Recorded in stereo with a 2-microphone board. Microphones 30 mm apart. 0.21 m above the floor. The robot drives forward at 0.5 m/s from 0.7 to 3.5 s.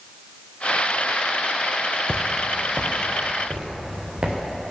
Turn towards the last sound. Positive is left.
turn(degrees=-30)  # may be behind; listen again after turning